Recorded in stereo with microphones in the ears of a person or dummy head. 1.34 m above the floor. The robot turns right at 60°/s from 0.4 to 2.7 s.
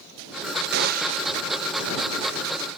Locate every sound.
0.7 s a gunshot: 65° right; by 1.3 s 30° right